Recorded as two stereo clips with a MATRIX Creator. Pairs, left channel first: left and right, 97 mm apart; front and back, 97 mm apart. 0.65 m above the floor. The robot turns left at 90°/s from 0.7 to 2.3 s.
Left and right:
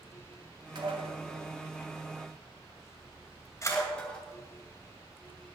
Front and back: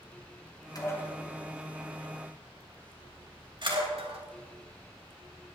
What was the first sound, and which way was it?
Dishes clattering, 50° right.